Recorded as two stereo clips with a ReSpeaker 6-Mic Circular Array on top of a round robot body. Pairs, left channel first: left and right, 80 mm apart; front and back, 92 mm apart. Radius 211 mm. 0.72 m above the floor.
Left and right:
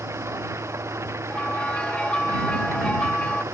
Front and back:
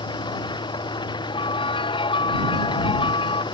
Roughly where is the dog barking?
I don't hear a dog barking.